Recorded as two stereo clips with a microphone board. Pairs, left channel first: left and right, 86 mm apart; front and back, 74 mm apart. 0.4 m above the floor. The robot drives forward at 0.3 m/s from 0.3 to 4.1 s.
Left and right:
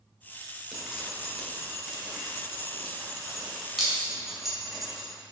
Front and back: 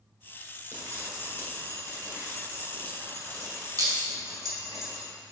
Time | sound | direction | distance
0.7 | dripping | 175° right | 1.5 m